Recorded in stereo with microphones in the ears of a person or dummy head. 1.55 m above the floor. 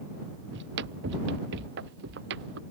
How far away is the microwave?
No microwave in this recording.